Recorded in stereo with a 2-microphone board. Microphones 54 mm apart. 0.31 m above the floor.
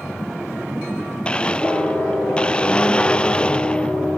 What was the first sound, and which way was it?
A blender, 20° left (ahead or behind).